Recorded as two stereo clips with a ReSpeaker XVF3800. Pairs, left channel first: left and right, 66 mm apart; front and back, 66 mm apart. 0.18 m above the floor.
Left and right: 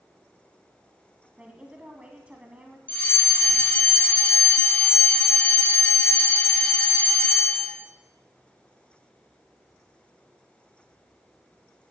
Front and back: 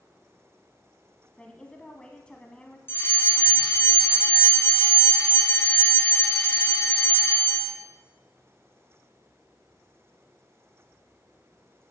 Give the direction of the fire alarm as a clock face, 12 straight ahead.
11 o'clock.